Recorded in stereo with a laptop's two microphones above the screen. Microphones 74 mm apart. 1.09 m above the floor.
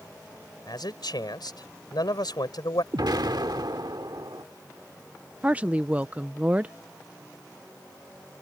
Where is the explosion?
75° right (ahead or behind).